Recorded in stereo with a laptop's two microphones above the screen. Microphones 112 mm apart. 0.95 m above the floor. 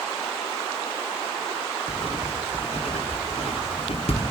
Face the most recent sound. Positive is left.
turn(degrees=70)  # may be behind; listen again after turning